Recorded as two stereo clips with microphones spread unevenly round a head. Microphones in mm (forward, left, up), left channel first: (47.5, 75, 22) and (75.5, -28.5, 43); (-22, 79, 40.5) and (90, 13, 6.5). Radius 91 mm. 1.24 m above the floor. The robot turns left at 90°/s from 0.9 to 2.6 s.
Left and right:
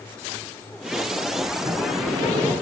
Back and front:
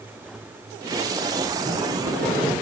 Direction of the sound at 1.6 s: 5° right.